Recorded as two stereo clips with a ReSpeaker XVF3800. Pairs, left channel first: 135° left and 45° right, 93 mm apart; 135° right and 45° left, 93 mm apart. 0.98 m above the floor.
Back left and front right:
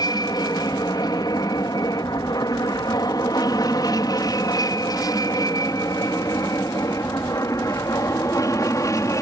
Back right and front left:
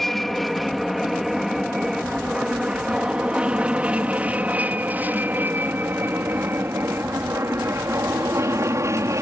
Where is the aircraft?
140° left; by 9.2 s 90° left.